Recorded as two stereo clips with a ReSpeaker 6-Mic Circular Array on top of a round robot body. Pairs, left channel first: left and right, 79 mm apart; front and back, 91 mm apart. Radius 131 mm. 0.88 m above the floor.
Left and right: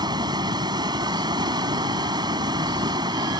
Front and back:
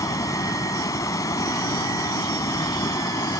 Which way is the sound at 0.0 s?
55° right.